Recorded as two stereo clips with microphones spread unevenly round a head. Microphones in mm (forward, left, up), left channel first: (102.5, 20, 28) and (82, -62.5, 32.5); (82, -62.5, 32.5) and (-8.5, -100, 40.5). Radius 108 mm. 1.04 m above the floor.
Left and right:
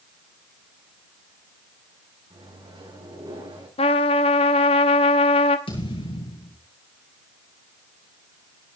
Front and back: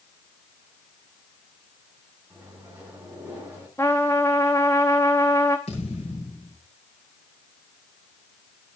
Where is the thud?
70° left, 8.5 m.